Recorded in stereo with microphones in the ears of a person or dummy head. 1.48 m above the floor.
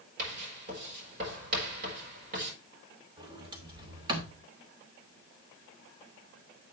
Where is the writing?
45° right (ahead or behind), 5 m.